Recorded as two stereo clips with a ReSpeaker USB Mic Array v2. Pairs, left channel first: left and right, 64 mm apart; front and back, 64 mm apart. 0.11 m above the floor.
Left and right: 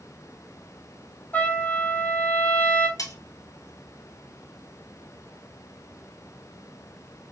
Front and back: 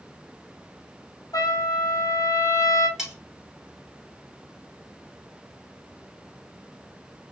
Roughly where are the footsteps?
I don't hear footsteps.